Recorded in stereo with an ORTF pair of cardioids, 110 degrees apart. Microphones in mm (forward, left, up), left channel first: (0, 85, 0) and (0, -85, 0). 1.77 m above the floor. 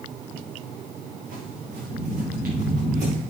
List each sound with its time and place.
1.2 s footsteps: 70° right, 8.5 m; by 3.2 s 65° right, 7.5 m